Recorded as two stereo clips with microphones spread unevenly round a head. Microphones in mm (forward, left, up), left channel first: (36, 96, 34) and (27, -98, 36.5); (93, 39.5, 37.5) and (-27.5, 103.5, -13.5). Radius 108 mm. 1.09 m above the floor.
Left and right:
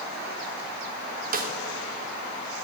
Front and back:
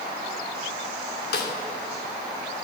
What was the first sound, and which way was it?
A snare drum, 45° right.